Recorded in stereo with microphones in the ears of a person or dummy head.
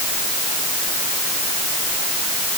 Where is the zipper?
I don't hear a zipper.